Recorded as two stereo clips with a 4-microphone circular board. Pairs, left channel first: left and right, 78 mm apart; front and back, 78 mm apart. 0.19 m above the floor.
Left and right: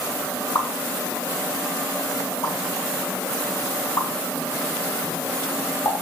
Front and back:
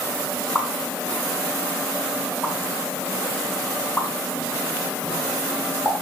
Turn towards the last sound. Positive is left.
turn(degrees=65)